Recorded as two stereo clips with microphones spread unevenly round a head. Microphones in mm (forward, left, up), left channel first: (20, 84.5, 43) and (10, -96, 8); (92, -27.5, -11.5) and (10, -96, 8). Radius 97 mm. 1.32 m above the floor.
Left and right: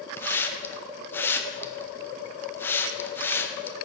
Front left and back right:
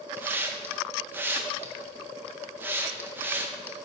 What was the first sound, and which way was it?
A hiss, 155° left.